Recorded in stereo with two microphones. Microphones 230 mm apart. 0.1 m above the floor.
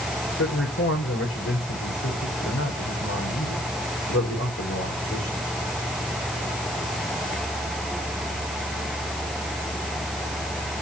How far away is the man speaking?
About 8.5 m.